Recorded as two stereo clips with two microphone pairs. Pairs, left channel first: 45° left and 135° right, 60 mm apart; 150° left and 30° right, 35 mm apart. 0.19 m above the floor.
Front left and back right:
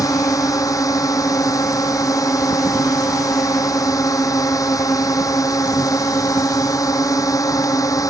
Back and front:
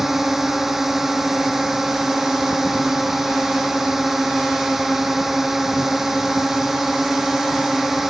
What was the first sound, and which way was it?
A drone, 45° left.